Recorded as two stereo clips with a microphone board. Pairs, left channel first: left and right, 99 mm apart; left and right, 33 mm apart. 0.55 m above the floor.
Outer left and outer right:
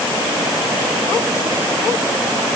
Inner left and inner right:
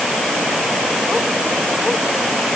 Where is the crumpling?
I don't hear crumpling.